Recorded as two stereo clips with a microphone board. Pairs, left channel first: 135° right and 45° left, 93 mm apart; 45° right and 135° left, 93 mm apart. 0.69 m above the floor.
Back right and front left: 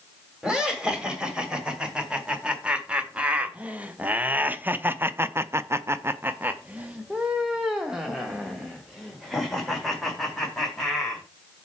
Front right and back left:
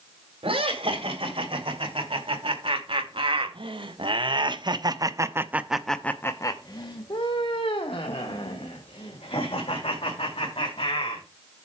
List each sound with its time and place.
0.4 s laughter: 125° left, 3 m; by 11.2 s 45° right, 3 m